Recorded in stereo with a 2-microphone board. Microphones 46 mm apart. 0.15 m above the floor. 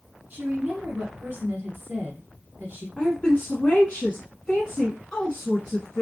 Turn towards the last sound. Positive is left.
turn(degrees=20)  # may be behind; listen again after turning